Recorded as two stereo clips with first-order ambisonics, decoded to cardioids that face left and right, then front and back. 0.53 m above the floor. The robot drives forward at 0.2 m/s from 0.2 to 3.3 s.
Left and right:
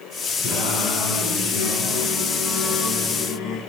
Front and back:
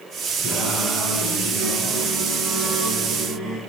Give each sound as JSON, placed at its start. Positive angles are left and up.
{"t": 0.4, "sound": "singing", "azimuth_deg": 120, "distance_m": 2.5}